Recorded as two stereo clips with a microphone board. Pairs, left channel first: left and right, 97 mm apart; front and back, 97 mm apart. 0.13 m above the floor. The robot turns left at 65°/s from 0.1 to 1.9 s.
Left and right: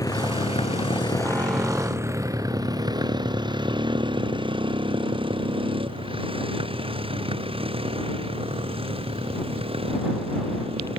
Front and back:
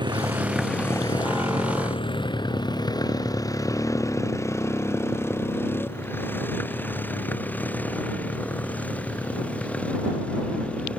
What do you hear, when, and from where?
0.0 s a motorcycle: 140° left; by 11.0 s 80° right